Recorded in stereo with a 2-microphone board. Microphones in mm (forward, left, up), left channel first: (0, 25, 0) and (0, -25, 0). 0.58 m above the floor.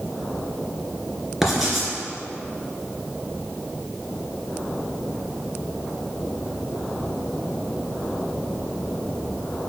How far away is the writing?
About 2 m.